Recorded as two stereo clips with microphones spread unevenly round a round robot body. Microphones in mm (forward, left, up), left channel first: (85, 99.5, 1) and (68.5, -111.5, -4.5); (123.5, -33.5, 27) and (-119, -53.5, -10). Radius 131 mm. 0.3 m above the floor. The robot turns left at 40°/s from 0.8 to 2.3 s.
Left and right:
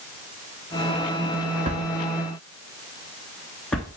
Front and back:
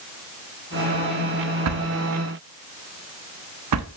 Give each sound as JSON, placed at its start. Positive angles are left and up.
{"t": 1.6, "sound": "a drawer", "azimuth_deg": -160, "distance_m": 1.0}